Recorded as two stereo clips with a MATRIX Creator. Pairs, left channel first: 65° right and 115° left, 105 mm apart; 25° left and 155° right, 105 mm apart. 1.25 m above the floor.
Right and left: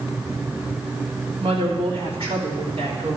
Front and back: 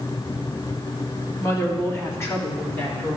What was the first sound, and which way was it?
A woman speaking, 85° left.